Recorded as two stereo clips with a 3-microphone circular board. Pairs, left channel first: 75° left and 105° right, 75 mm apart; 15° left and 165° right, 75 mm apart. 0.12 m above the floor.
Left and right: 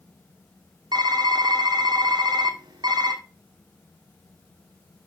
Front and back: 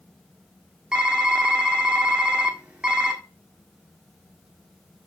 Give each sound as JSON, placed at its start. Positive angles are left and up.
{"t": 0.9, "sound": "typing on a keyboard", "azimuth_deg": -90, "distance_m": 1.4}